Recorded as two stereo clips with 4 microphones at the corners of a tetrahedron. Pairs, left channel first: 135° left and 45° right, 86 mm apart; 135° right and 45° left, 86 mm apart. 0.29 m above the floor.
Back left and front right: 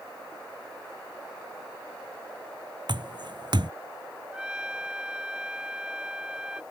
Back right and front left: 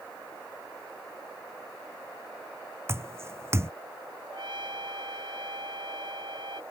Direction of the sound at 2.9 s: 15° right.